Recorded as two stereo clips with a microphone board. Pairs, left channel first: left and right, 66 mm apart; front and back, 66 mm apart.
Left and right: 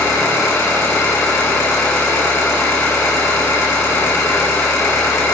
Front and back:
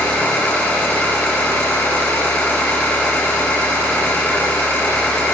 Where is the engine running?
55° left, 5 m.